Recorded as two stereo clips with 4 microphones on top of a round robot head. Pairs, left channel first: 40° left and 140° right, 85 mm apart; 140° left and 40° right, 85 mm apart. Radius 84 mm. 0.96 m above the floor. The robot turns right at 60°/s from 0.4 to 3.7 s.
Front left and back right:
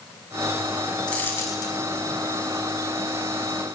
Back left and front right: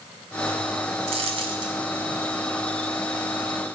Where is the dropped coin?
40° right, 1.4 m; by 1.8 s straight ahead, 1.4 m.